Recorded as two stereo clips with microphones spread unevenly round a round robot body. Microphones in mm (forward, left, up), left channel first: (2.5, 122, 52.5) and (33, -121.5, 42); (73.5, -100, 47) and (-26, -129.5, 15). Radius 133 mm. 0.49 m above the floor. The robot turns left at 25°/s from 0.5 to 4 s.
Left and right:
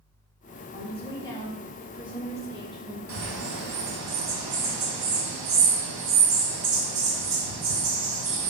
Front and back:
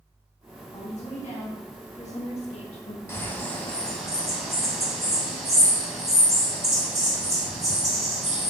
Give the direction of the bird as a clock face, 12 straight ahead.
2 o'clock.